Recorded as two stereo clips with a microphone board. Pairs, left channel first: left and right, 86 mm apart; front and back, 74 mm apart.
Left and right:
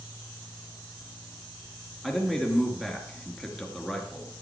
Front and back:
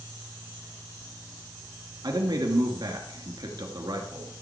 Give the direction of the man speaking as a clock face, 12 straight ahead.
6 o'clock.